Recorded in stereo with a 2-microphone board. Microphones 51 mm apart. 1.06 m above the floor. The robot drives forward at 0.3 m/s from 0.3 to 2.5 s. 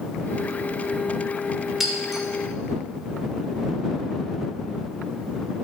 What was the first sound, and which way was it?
Breaking glass, 5° right (ahead or behind).